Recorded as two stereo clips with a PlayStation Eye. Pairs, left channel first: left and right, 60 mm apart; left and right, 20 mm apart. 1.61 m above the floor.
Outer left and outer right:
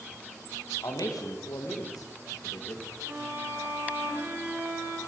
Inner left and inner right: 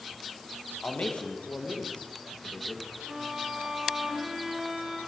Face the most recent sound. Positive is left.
turn(degrees=-35)  # may be behind; listen again after turning